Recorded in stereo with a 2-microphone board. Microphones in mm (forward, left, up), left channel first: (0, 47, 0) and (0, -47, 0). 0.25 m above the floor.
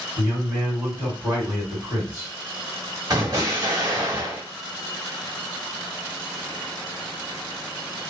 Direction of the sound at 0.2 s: 20° right (ahead or behind).